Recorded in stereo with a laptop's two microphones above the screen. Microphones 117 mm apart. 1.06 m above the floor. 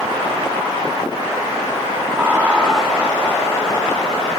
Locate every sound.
2.1 s laughter: 20° right (ahead or behind), 1.9 m; by 4.3 s 45° left (ahead or behind), 2 m